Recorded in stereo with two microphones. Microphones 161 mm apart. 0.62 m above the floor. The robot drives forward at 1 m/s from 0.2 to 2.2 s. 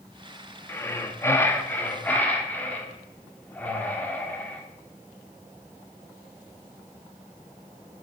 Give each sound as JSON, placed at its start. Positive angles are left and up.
{"t": 0.7, "sound": "breathing", "side_deg": 15, "distance_m": 0.9}